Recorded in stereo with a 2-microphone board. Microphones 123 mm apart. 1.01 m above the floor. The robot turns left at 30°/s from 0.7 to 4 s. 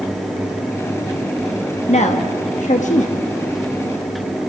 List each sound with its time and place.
1.9 s a woman speaking: 65° left (ahead or behind), 1.3 m; by 3.2 s 70° left (ahead or behind), 1.3 m